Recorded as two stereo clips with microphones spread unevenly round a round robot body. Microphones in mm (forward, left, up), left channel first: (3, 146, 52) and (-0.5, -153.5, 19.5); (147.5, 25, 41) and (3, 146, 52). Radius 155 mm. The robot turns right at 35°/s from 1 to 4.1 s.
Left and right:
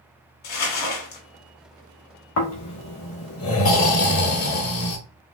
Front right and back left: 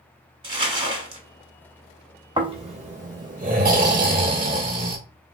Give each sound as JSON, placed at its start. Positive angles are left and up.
{"t": 0.4, "sound": "crumpling", "azimuth_deg": 75, "distance_m": 1.5}
{"t": 2.4, "sound": "snoring", "azimuth_deg": 80, "distance_m": 1.6}